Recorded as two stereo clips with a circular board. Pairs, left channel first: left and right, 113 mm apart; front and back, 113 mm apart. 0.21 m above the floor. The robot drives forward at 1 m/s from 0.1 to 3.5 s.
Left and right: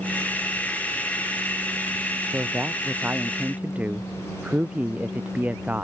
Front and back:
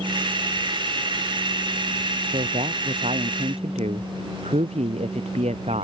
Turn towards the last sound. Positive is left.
turn(degrees=-165)